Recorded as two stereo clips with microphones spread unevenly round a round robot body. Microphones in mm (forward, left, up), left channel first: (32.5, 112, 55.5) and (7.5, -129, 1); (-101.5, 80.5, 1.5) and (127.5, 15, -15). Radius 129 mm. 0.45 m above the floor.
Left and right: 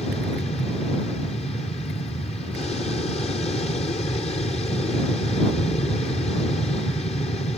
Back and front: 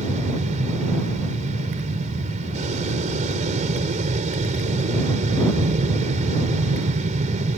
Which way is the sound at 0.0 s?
20° left.